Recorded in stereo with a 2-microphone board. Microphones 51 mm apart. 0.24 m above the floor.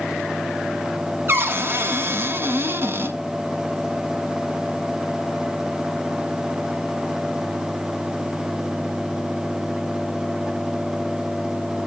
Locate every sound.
1.3 s a cupboard door: 45° right (ahead or behind), 1.2 m